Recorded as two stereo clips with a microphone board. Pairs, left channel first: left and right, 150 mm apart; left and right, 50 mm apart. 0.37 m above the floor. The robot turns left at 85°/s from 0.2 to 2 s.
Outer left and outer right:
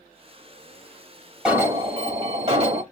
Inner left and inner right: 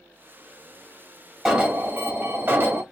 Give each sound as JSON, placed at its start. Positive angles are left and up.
{"t": 1.4, "sound": "an alarm", "azimuth_deg": -5, "distance_m": 1.4}